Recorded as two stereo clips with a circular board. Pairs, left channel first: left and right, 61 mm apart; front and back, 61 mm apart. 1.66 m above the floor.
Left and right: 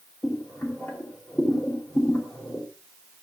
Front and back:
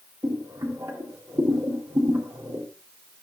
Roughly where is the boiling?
Behind left.